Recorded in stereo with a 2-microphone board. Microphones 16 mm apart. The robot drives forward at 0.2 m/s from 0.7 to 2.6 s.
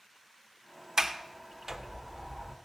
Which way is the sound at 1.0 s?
40° right (ahead or behind).